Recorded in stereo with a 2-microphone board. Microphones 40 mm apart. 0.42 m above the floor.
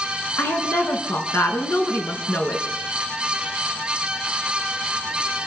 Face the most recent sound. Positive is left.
turn(degrees=75)  # may be behind; listen again after turning